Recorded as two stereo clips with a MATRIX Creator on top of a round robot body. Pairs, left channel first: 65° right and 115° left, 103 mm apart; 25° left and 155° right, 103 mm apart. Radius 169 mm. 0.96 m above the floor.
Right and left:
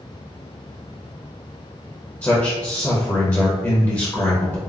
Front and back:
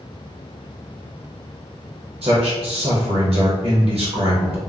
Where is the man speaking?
135° right, 0.8 m.